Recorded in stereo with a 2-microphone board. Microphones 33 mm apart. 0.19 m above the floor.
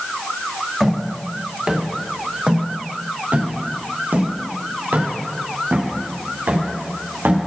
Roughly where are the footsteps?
Centre.